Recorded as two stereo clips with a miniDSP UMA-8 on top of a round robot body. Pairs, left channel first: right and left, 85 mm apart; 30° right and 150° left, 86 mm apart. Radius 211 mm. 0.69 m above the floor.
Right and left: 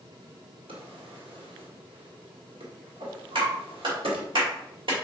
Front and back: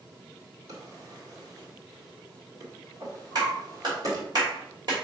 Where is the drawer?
105° left, 1.8 m.